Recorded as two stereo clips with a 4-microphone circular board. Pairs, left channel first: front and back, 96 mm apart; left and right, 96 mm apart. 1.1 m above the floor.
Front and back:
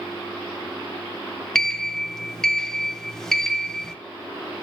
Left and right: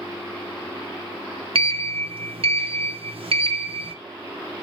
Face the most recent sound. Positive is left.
turn(degrees=-85)